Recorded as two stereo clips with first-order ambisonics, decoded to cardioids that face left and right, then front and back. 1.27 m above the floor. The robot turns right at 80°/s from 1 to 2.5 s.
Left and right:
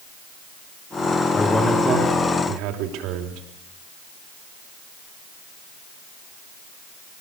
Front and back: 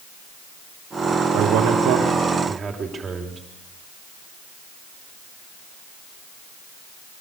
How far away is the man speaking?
About 3.5 m.